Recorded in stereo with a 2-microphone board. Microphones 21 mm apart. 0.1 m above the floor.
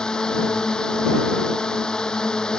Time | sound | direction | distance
0.0 | a drone | 30° left (ahead or behind) | ?